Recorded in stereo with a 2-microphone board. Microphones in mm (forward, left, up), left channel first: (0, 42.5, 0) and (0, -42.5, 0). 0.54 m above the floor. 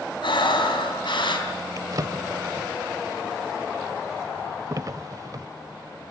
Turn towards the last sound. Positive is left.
turn(degrees=-45)  # may be behind; listen again after turning